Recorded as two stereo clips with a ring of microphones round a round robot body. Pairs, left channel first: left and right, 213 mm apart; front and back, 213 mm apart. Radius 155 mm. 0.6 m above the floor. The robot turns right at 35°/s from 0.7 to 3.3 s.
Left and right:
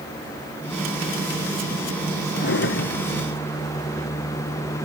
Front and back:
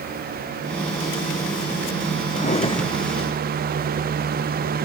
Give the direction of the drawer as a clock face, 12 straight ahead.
10 o'clock.